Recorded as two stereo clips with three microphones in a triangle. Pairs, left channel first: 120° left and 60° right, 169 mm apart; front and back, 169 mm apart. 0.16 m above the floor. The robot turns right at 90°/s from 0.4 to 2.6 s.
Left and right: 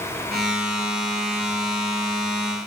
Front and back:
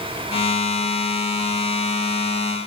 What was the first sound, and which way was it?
Only background noise.